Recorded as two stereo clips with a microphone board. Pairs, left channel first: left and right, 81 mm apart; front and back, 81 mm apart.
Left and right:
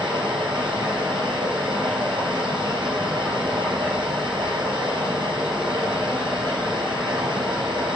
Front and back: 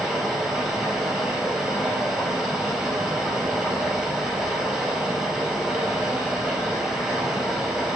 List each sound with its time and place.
0.0 s running water: 100° right, 3.5 m